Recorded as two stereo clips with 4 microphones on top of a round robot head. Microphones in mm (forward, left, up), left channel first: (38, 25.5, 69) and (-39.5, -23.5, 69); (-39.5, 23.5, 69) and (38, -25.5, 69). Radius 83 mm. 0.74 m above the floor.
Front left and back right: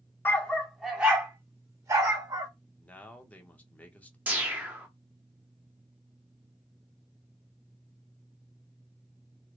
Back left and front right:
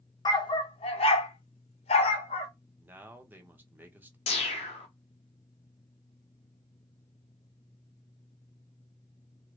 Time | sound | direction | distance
0.2 | a dog barking | 100° left | 0.7 m
2.8 | a man speaking | 15° right | 0.9 m
4.3 | a whoosh | 135° left | 0.8 m